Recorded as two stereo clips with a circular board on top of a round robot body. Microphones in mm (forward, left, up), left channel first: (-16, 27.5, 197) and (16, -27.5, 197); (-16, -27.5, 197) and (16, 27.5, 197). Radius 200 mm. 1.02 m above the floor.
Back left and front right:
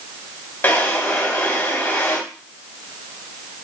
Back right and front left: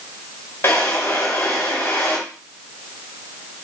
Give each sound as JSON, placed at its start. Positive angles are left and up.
{"t": 0.6, "sound": "a drawer", "azimuth_deg": 180, "distance_m": 1.9}